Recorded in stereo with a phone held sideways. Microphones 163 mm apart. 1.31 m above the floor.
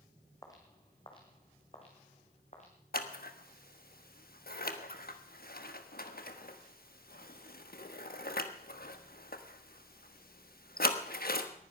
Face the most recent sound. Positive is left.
turn(degrees=65)  # may be behind; listen again after turning